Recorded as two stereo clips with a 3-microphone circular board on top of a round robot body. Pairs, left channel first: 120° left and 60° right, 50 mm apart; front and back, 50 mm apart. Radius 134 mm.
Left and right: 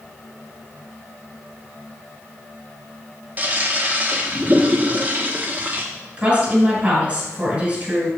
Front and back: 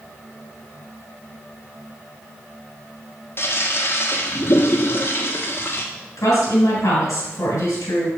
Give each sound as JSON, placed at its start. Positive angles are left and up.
{"t": 3.4, "sound": "a toilet flushing", "azimuth_deg": -10, "distance_m": 1.3}
{"t": 6.2, "sound": "a woman speaking", "azimuth_deg": 0, "distance_m": 3.0}